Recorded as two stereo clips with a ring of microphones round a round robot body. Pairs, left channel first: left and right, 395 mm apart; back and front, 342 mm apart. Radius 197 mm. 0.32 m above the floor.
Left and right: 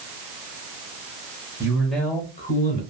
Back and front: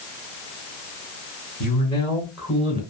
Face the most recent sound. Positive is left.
turn(degrees=55)